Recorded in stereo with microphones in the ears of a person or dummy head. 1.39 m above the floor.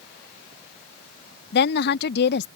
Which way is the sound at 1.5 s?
70° left (ahead or behind).